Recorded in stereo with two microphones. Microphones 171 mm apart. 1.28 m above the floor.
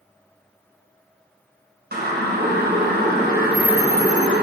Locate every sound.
1.9 s a siren: 75° right (ahead or behind), 5.5 m; by 4.4 s 80° right, 4.5 m